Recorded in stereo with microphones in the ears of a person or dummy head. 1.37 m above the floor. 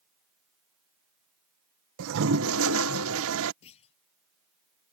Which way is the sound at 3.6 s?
30° left (ahead or behind).